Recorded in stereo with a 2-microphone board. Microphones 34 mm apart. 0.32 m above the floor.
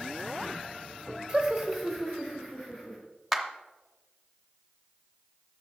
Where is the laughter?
20° right (ahead or behind), 1.2 m; by 3.0 s 35° left (ahead or behind), 2 m.